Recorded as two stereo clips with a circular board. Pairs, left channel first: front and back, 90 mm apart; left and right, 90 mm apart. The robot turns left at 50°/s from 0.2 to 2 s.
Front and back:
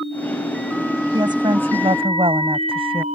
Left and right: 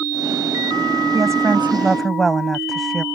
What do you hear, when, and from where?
1.1 s a woman speaking: 140° right; by 3.0 s straight behind